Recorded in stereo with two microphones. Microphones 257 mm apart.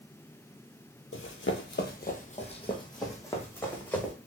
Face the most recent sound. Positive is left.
turn(degrees=5)  # may be behind; listen again after turning